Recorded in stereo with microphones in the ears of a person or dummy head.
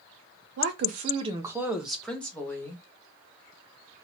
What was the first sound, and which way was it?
A woman speaking, 60° right (ahead or behind).